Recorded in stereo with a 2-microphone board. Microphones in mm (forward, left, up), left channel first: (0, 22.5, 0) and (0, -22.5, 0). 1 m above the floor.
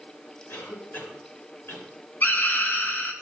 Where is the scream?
50° left (ahead or behind), 1.5 m.